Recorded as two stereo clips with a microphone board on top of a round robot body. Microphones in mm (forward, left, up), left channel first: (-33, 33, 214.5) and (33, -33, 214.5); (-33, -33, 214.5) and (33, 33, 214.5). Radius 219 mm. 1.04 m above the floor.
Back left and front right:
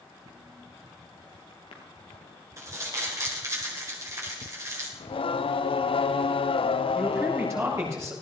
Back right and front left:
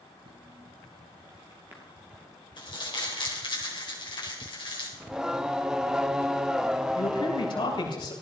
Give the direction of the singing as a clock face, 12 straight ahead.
8 o'clock.